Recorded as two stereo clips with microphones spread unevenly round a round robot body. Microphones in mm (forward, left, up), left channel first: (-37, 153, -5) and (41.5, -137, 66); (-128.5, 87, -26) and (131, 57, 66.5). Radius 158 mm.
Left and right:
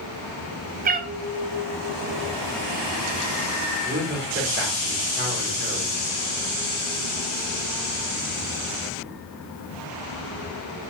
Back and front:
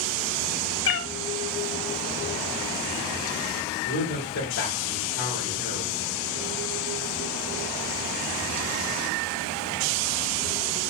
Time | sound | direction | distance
0.8 | a cat meowing | 130° right | 0.7 m
3.9 | a man speaking | 135° right | 2.5 m